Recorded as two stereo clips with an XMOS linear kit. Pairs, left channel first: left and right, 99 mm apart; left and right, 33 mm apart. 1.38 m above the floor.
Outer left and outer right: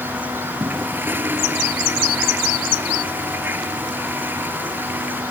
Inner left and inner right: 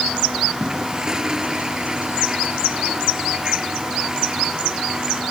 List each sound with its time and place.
0.6 s a toilet flushing: 20° right (ahead or behind)